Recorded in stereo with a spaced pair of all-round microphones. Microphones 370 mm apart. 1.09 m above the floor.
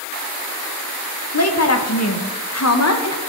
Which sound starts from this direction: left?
A woman speaking, at 1.3 s.